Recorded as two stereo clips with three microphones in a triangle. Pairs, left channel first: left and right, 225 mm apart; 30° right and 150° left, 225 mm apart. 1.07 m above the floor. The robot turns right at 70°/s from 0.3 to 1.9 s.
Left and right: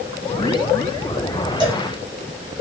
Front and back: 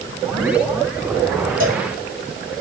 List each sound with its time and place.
1.6 s a cowbell: 160° right, 1.6 m; by 1.9 s 145° right, 1.6 m